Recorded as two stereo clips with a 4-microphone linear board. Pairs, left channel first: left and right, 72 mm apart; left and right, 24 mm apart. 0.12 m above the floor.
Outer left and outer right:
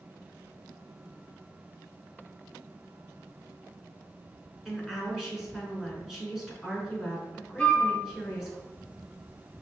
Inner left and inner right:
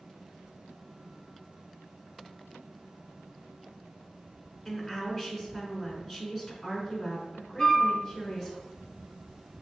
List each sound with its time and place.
4.7 s a woman speaking: 5° right (ahead or behind), 1.1 m
7.6 s a flute: 10° left (ahead or behind), 0.9 m